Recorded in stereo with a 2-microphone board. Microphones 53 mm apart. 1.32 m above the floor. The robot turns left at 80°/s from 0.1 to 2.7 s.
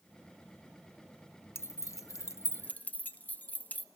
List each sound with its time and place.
1.6 s keys jangling: 50° left (ahead or behind), 0.8 m; by 3.9 s 35° left (ahead or behind), 0.8 m